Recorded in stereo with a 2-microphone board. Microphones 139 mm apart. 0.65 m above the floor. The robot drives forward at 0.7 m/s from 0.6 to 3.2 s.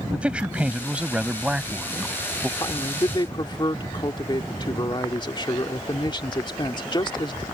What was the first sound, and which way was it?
A man speaking, 10° right (ahead or behind).